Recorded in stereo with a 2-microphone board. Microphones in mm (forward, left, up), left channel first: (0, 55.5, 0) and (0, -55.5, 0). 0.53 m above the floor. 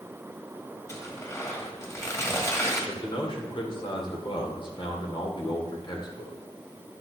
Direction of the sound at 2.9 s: 50° left (ahead or behind).